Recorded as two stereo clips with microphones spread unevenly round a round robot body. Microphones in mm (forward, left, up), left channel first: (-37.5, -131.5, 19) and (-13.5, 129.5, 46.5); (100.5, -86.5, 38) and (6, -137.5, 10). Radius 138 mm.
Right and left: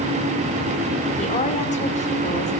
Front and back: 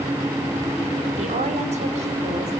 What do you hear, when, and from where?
1.2 s a woman speaking: 160° right, 2.5 m